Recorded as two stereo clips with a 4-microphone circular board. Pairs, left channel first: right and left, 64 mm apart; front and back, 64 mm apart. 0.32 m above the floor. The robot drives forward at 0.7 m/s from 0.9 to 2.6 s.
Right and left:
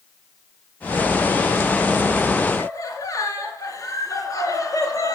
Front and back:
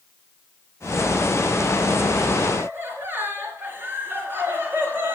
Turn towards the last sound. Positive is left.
turn(degrees=-120)